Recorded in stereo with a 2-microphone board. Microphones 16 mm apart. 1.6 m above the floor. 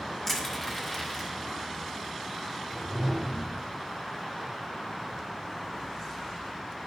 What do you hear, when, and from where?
0.3 s crushing: 20° left (ahead or behind), 2 m
2.7 s a whoosh: 25° left (ahead or behind), 1.7 m